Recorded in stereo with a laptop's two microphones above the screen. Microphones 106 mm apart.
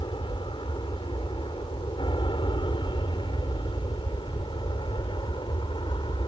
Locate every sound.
0.0 s an aircraft: 50° left (ahead or behind)